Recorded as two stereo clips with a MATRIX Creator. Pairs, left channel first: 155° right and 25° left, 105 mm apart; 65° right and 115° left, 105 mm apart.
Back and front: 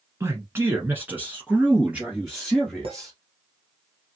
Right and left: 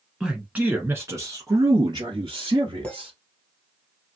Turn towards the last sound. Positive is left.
turn(degrees=10)